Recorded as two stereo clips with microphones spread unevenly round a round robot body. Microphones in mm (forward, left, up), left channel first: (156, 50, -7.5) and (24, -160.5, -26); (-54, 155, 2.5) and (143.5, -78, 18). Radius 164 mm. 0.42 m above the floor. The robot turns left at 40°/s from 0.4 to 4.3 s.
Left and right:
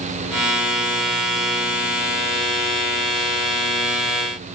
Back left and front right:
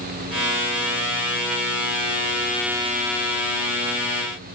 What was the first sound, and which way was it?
Only background noise.